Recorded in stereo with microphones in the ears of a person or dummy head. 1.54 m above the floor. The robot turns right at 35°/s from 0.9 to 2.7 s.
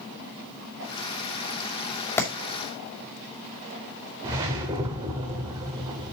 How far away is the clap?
About 2.5 m.